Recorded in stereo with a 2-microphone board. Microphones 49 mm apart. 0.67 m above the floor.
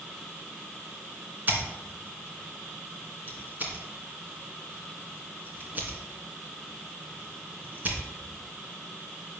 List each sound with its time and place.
1.5 s scissors: 35° right (ahead or behind), 2 m